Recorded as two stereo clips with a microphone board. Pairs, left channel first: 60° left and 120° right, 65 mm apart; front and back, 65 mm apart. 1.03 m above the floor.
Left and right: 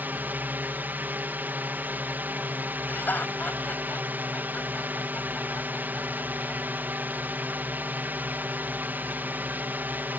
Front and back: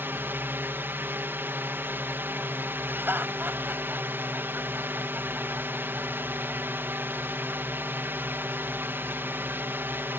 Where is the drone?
155° right.